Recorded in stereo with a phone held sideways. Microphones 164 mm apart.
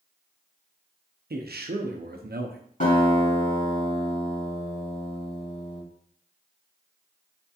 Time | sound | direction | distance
1.3 | a man speaking | 80° right | 0.5 m
2.8 | a guitar | 60° left (ahead or behind) | 2 m